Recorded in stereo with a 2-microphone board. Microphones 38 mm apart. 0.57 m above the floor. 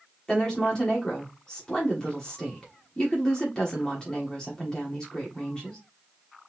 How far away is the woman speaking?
About 1.3 m.